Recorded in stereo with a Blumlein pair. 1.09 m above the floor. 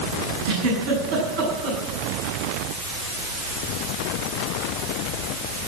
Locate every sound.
0.5 s a giggle: 50° right, 6.5 m